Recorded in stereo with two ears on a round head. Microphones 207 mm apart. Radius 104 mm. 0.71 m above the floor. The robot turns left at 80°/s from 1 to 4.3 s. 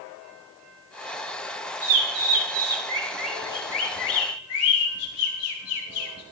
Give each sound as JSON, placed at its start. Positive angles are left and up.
{"t": 1.8, "sound": "a bird", "side_deg": -60, "distance_m": 5.0}